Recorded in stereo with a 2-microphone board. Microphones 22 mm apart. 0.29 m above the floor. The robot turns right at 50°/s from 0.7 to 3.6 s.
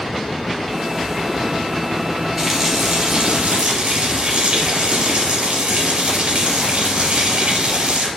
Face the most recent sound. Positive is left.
turn(degrees=-105)